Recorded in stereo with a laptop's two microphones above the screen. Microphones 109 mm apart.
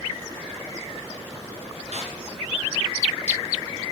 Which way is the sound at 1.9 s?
75° right (ahead or behind).